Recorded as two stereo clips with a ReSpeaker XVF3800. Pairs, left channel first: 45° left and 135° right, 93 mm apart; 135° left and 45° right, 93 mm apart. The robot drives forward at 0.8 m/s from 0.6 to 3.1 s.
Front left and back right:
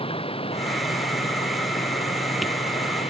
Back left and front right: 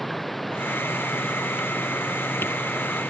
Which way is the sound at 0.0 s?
45° left.